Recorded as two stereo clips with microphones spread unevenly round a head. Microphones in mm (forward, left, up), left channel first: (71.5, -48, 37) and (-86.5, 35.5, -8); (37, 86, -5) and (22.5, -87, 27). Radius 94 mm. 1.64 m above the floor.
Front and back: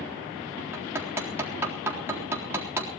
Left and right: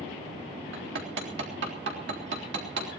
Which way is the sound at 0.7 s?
130° right.